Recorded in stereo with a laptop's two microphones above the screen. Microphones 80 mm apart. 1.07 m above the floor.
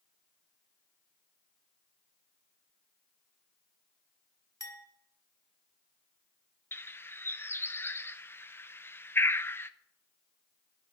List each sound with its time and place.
4.6 s a clink: 45° left (ahead or behind), 1.3 m
6.7 s a bird: 30° left (ahead or behind), 0.6 m